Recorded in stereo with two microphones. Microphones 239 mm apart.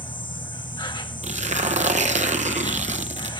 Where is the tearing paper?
30° right (ahead or behind), 0.8 m.